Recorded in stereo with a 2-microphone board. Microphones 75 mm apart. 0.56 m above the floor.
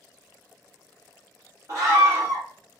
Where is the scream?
45° right (ahead or behind), 1.3 m.